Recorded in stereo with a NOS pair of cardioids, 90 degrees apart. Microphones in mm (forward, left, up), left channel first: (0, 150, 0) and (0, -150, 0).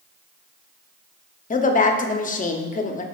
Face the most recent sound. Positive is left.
turn(degrees=30)